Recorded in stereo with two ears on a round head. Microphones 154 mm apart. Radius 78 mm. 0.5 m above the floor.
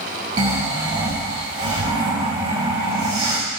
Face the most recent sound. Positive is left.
turn(degrees=-35)  # may be behind; listen again after turning